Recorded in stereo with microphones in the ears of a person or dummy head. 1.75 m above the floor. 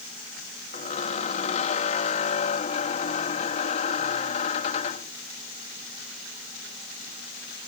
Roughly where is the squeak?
Left.